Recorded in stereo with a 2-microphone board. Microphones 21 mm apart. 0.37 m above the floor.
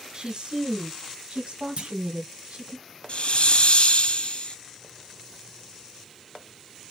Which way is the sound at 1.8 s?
60° right (ahead or behind).